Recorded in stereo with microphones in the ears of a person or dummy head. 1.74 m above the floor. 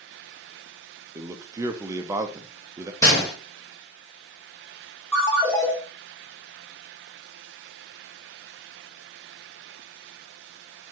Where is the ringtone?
10° left (ahead or behind), 2.5 m.